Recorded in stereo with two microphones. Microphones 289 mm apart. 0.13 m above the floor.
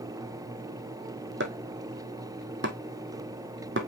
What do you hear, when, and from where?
1.4 s chopping: 40° right (ahead or behind), 1.4 m